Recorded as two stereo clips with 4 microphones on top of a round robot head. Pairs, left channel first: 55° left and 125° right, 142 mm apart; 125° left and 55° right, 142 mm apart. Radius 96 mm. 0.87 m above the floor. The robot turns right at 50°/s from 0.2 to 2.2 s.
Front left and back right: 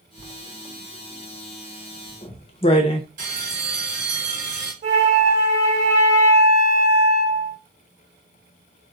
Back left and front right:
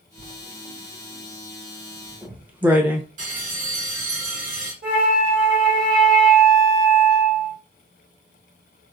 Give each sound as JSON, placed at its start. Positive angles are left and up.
{"t": 0.2, "sound": "writing", "azimuth_deg": -80, "distance_m": 0.9}
{"t": 3.2, "sound": "a bell", "azimuth_deg": -90, "distance_m": 2.5}
{"t": 4.8, "sound": "a flute", "azimuth_deg": -85, "distance_m": 2.0}